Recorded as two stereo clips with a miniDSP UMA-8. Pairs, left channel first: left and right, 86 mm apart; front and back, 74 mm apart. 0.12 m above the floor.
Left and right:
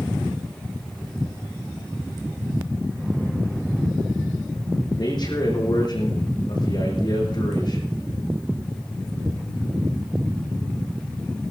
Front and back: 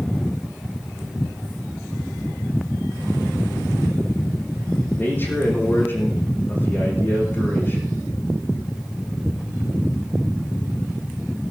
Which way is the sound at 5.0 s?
60° left.